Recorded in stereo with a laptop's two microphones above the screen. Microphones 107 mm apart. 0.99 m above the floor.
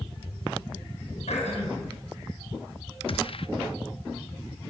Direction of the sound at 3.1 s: 55° left (ahead or behind).